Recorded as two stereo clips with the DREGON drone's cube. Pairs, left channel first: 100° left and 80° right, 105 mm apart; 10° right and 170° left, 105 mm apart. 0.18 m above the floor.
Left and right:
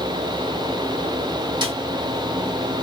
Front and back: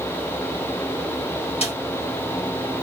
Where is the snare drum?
35° right, 2 m.